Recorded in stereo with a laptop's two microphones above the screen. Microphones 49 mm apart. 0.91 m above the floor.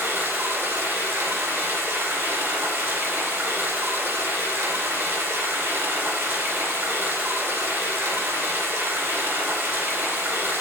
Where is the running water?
70° right (ahead or behind), 2.0 m.